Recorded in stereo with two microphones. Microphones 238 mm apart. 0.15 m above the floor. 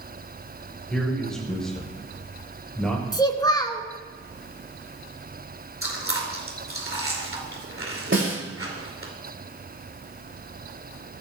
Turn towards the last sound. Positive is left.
turn(degrees=-50)  # may be behind; listen again after turning